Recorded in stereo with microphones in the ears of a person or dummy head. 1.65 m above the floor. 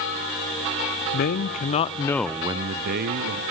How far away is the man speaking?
About 1.1 m.